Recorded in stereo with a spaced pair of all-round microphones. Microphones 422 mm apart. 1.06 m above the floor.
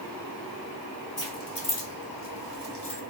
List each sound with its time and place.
1.2 s keys jangling: 60° left (ahead or behind), 1.1 m; by 3.0 s 65° left (ahead or behind), 1.1 m